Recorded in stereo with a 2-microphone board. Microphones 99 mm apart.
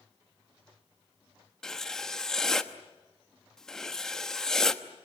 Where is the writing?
5° left (ahead or behind), 1.0 m.